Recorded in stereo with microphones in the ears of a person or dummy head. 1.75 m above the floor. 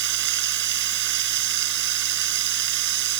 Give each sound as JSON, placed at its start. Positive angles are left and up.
{"t": 0.0, "sound": "running water", "side_deg": -60}